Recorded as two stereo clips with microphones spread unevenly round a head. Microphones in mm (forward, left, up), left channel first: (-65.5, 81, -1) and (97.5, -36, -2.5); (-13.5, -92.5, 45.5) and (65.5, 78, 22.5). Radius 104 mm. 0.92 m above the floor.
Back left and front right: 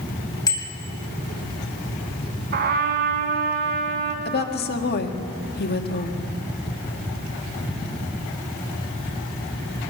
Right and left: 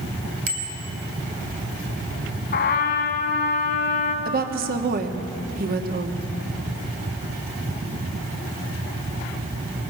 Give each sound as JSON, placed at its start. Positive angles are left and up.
{"t": 0.5, "sound": "a bicycle bell", "azimuth_deg": 75, "distance_m": 3.5}
{"t": 2.5, "sound": "a trumpet", "azimuth_deg": -80, "distance_m": 1.7}
{"t": 4.2, "sound": "a woman speaking", "azimuth_deg": 105, "distance_m": 1.7}